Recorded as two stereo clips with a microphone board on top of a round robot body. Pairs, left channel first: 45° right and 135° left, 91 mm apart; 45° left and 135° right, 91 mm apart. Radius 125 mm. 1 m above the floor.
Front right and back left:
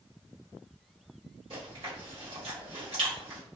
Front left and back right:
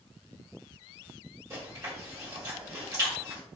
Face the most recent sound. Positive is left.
turn(degrees=170)